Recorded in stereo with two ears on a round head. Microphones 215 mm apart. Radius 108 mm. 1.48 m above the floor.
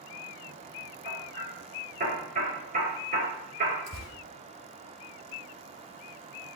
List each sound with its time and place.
1.1 s hammering: 35° right (ahead or behind), 6 m
3.9 s tearing paper: 80° right, 5.5 m